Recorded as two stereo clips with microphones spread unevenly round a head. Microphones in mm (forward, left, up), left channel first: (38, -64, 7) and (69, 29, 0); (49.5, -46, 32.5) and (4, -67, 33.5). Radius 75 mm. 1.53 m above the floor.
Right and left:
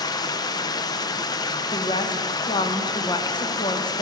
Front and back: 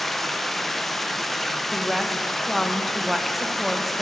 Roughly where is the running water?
Ahead right.